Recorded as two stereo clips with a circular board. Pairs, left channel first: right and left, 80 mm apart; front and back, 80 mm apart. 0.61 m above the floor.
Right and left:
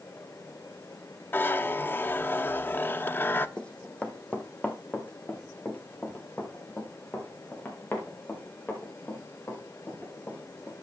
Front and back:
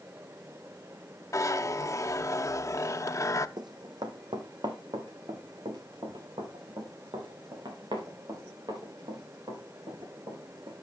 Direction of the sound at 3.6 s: 165° right.